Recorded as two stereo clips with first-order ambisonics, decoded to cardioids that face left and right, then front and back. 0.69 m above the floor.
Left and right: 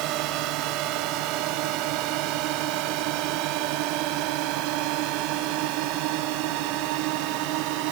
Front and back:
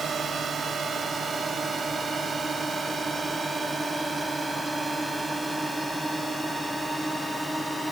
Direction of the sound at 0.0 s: 115° right.